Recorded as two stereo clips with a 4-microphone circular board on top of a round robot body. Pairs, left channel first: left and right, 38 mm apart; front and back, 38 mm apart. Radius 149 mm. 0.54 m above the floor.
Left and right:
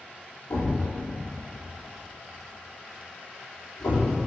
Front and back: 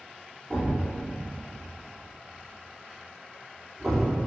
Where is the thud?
85° left, 3.5 m.